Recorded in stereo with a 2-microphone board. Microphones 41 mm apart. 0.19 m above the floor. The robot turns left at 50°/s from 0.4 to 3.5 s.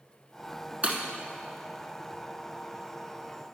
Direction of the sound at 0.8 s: 35° right (ahead or behind).